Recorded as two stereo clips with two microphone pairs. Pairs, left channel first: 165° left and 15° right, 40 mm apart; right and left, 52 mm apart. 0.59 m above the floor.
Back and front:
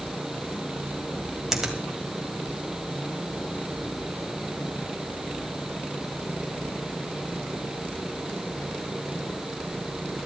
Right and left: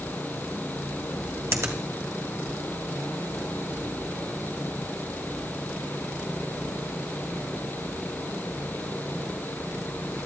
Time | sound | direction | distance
1.5 | a finger snap | 65° left | 2 m